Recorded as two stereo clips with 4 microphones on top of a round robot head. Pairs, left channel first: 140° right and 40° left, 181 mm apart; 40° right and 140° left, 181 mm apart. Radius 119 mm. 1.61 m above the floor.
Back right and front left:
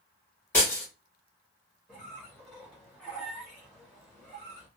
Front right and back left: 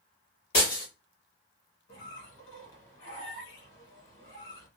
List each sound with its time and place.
0.5 s breaking glass: 75° right, 1.4 m
1.9 s a squeak: 55° right, 1.3 m